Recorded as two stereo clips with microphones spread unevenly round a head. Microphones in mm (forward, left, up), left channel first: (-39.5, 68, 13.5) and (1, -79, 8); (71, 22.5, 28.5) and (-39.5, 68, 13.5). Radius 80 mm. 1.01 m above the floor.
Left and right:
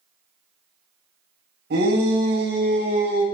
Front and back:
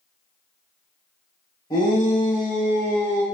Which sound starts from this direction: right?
A shout, at 1.7 s.